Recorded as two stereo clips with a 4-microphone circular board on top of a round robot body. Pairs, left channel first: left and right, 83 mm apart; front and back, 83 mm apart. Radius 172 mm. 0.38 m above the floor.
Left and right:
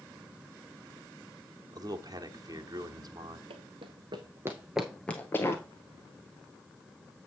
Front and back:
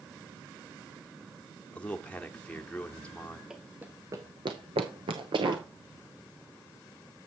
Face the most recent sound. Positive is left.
turn(degrees=150)